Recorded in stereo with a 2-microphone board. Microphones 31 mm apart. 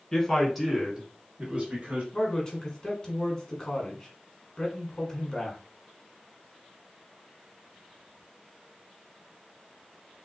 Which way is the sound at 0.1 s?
15° left (ahead or behind).